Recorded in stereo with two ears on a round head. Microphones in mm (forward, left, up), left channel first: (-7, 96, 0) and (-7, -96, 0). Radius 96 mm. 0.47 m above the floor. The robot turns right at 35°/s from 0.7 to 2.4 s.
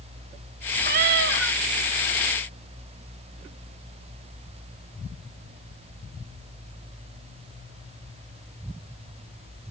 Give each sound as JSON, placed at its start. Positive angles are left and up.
{"t": 0.8, "sound": "a cat meowing", "side_deg": -45, "distance_m": 0.8}